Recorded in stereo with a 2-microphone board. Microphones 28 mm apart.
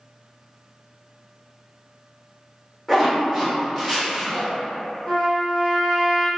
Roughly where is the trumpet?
Left.